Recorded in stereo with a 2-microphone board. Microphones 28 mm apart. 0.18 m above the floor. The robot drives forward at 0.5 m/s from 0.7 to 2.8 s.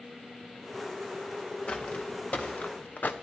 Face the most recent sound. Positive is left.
turn(degrees=75)  # may be behind; listen again after turning